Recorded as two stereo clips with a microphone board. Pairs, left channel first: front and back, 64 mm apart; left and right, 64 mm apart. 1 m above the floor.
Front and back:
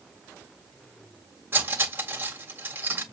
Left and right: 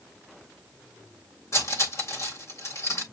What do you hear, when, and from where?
1.5 s cutlery clinking: 125° left, 1.8 m